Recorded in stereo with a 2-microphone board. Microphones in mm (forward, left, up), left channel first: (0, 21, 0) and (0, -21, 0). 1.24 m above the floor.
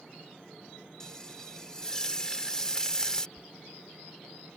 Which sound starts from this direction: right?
A dropped coin, at 3.4 s.